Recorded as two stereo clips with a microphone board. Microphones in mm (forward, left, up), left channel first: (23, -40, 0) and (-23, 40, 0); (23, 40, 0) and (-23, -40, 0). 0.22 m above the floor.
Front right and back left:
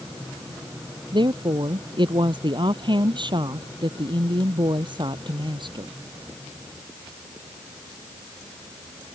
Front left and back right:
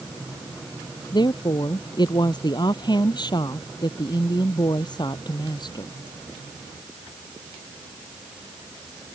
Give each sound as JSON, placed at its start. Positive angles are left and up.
{"t": 1.1, "sound": "a woman speaking", "azimuth_deg": 90}